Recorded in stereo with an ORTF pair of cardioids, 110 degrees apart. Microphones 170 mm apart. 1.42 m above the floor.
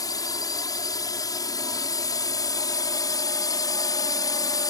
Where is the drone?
20° left.